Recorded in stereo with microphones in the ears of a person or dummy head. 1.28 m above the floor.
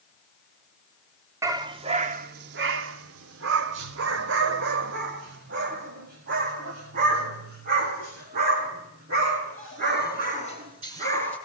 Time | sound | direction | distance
1.4 | a dog barking | 15° right (ahead or behind) | 1.4 m